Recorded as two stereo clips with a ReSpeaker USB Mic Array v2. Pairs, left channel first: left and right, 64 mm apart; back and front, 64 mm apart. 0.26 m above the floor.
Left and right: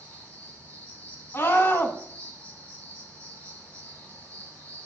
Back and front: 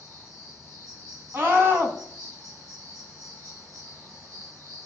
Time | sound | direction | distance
0.0 | an insect | 20° left | 4 m
1.3 | a scream | 45° left | 2 m